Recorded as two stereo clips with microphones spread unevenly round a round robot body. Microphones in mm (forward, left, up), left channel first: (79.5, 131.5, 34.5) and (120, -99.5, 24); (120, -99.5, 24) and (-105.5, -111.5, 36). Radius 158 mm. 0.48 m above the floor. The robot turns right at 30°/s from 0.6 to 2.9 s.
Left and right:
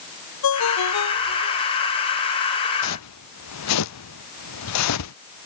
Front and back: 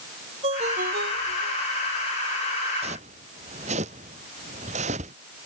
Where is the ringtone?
110° left; by 1.6 s 140° left.